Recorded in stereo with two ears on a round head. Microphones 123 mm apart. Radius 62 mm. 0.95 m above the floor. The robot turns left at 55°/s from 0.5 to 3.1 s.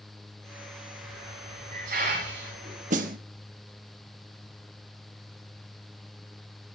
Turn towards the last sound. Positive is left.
turn(degrees=-65)  # may be behind; listen again after turning